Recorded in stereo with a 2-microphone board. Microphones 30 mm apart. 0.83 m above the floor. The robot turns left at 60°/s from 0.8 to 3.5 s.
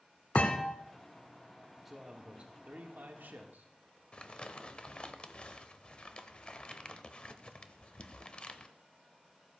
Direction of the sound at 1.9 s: 5° right.